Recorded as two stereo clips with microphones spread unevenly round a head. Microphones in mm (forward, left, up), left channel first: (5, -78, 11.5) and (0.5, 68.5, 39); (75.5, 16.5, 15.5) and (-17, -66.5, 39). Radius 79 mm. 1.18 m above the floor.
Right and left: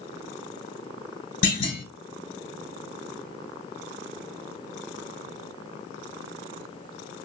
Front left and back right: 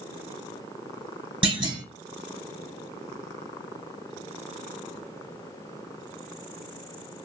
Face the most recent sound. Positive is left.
turn(degrees=-95)